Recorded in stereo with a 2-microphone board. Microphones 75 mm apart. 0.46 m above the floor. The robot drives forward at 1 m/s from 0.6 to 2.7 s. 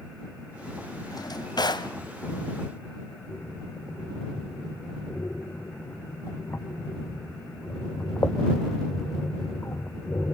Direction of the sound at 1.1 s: 60° left (ahead or behind).